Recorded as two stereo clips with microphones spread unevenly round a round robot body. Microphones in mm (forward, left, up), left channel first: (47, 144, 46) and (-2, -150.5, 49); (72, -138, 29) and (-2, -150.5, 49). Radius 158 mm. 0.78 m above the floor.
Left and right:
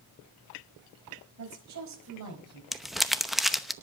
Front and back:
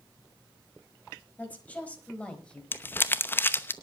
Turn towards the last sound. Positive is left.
turn(degrees=-10)